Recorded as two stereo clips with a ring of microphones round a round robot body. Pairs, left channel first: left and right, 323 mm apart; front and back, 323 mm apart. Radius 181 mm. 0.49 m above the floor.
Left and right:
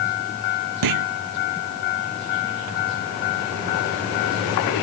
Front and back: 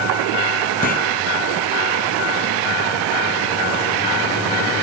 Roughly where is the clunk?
Right.